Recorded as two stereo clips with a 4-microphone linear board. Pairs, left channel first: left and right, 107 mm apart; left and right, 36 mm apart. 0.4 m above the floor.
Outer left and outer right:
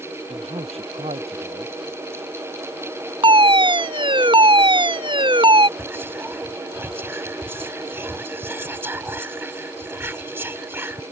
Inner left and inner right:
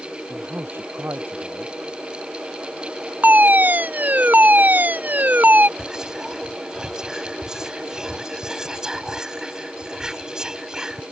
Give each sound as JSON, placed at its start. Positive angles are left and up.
{"t": 0.3, "sound": "a man speaking", "side_deg": -70}
{"t": 3.2, "sound": "a fire alarm", "side_deg": -50}
{"t": 5.8, "sound": "whispering", "side_deg": -20}